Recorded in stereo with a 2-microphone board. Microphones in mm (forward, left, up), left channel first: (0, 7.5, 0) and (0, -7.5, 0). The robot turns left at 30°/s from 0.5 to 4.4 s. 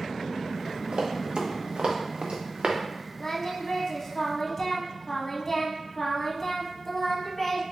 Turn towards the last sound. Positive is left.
turn(degrees=50)